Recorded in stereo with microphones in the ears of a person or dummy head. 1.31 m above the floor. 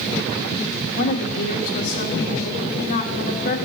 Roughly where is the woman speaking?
Left.